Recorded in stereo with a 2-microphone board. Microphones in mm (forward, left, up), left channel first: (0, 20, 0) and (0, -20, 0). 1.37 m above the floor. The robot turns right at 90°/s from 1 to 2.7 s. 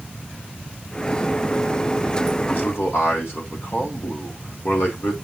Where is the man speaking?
50° left (ahead or behind), 3.5 m; by 5.1 s 65° left (ahead or behind), 3.5 m.